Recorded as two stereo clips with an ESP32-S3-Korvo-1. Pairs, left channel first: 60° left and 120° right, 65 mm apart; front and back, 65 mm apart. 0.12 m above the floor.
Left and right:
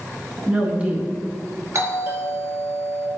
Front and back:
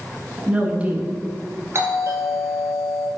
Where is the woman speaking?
150° right, 1.4 m.